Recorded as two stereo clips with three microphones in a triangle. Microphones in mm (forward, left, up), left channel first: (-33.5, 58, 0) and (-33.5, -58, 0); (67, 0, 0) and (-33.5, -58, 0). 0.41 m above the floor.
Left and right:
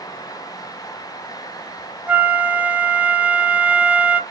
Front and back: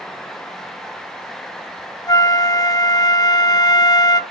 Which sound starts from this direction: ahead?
A flute, at 2.1 s.